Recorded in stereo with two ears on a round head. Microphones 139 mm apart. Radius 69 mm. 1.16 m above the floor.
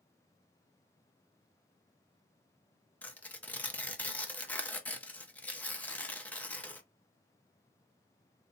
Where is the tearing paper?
10° left (ahead or behind), 0.5 m.